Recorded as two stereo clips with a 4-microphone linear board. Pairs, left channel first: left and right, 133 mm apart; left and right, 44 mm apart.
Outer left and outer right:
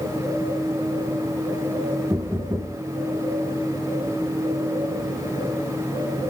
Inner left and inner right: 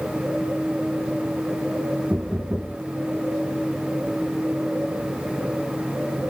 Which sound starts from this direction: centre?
Knocking, at 2.1 s.